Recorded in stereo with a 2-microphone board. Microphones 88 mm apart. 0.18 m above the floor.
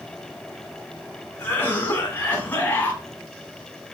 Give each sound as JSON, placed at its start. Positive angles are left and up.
{"t": 1.4, "sound": "a cough", "side_deg": 20, "distance_m": 1.3}